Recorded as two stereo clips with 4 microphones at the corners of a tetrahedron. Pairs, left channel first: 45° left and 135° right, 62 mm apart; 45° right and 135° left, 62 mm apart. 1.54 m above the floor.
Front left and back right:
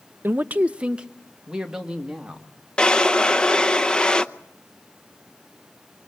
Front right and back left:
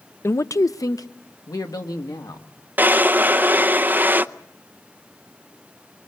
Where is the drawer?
110° left, 0.7 m.